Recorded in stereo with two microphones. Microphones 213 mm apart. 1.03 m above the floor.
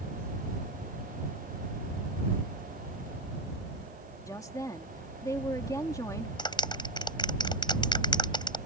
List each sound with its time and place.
4.3 s a woman speaking: 15° left (ahead or behind)
6.4 s a clap: 20° left (ahead or behind)